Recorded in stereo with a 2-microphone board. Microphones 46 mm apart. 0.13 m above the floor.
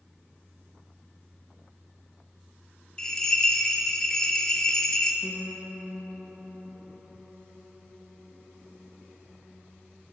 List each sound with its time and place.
3.0 s a bell: 15° left (ahead or behind), 0.6 m
5.2 s a piano: 25° left (ahead or behind), 1.0 m